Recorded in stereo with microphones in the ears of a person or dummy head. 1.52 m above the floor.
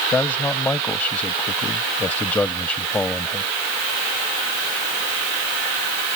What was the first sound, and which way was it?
A man speaking, 10° left (ahead or behind).